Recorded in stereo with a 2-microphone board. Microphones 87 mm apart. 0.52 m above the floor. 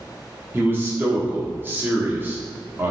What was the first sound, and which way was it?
A man speaking, 25° right (ahead or behind).